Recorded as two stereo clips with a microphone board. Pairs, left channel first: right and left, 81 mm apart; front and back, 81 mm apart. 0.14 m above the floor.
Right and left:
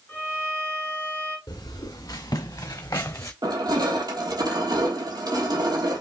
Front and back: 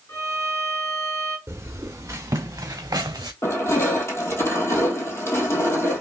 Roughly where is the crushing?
Ahead left.